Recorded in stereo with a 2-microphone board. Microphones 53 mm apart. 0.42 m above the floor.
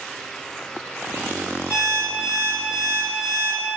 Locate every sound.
1.7 s an alarm clock: 5° right (ahead or behind), 1.7 m